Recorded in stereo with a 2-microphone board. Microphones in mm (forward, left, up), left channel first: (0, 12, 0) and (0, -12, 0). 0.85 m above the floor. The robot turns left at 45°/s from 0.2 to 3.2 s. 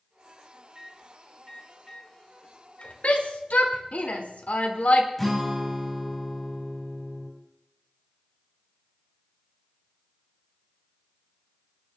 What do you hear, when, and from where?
0.8 s a microwave: 30° right (ahead or behind), 3 m; by 2.9 s 65° left (ahead or behind), 3 m
3.0 s a shout: 80° left, 2 m
5.2 s a guitar: 10° left (ahead or behind), 4 m